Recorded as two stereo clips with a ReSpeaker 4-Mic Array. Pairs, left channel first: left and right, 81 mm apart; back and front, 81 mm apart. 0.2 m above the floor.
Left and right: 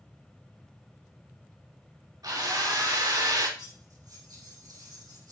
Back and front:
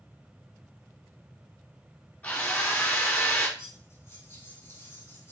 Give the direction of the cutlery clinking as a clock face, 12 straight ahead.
4 o'clock.